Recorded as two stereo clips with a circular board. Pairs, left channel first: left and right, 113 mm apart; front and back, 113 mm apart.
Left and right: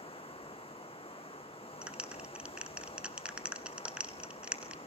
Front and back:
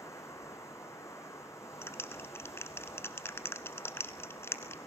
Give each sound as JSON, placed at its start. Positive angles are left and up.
{"t": 0.0, "sound": "running water", "azimuth_deg": 65, "distance_m": 2.0}
{"t": 1.8, "sound": "a clap", "azimuth_deg": -25, "distance_m": 1.0}